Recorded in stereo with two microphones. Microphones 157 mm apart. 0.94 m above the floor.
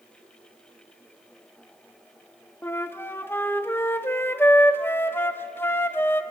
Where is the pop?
No pop in this recording.